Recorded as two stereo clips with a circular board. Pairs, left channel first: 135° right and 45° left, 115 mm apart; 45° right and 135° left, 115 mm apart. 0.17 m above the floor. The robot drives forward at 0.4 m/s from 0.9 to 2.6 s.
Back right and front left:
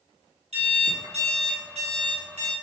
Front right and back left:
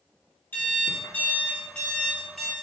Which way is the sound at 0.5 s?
25° left.